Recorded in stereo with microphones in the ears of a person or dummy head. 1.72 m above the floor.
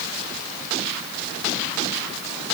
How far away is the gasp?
No gasp in this recording.